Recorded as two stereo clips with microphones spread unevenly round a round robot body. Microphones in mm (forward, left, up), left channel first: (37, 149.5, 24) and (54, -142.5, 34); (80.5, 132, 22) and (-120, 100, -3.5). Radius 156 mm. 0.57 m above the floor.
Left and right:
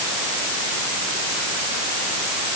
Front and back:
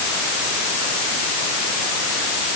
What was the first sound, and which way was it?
Only background noise.